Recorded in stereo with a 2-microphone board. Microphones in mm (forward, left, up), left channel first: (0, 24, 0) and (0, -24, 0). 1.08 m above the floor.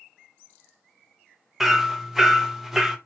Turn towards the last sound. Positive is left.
turn(degrees=-5)  # may be behind; listen again after turning